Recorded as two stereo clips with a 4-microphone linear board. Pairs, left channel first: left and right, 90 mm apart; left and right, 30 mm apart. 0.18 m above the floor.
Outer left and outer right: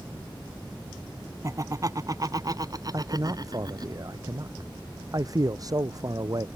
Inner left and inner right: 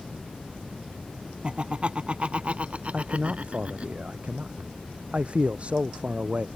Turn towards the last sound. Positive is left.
turn(degrees=-45)  # may be behind; listen again after turning